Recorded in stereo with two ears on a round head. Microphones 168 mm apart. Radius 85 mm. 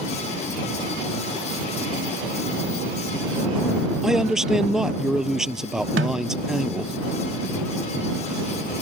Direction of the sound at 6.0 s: 65° right (ahead or behind).